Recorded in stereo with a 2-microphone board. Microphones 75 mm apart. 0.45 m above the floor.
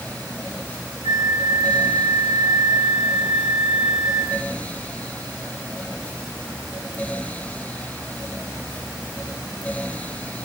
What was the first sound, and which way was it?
A flute, 75° left (ahead or behind).